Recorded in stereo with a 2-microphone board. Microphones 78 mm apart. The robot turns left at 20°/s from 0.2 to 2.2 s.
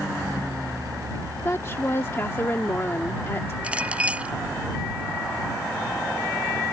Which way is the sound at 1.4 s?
35° left (ahead or behind).